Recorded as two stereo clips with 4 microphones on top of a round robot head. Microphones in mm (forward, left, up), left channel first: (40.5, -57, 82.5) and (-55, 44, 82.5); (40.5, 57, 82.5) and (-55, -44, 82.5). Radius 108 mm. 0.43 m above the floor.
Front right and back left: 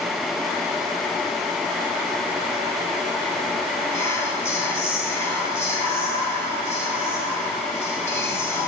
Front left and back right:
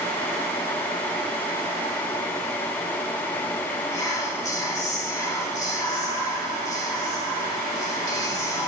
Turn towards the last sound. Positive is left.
turn(degrees=5)